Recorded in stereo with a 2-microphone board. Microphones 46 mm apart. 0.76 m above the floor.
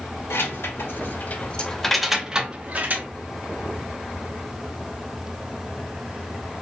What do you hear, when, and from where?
0.3 s keys jangling: 70° left (ahead or behind), 1.2 m; by 3.1 s 45° right (ahead or behind), 1.1 m